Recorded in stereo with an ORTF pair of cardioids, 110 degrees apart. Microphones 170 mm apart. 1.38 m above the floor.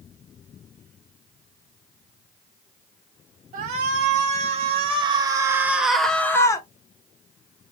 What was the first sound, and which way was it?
A shout, 55° right.